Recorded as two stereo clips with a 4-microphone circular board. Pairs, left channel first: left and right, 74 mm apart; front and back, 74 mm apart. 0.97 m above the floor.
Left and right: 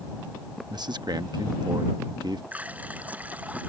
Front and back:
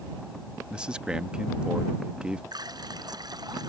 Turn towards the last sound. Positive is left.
turn(degrees=-160)